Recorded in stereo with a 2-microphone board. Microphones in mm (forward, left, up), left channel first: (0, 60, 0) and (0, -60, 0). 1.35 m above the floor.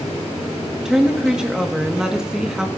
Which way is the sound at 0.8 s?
5° right (ahead or behind).